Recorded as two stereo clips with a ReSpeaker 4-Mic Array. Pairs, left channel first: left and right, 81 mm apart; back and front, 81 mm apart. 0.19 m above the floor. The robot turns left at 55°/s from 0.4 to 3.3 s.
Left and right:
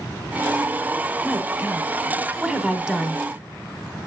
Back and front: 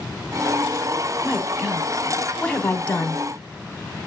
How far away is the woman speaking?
About 1.0 m.